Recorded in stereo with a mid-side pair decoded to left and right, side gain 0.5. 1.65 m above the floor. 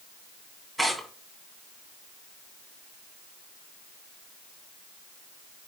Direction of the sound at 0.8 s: 5° right.